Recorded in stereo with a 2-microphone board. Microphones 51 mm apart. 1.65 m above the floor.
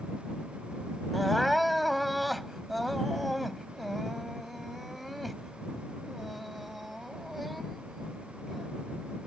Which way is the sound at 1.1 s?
Centre (ahead or behind).